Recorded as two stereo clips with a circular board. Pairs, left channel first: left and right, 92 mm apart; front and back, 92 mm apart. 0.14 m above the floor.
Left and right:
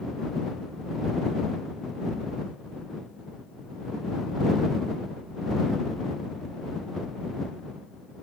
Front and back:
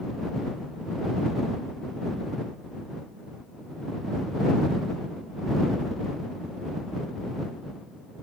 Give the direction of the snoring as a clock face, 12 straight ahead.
I don't hear snoring.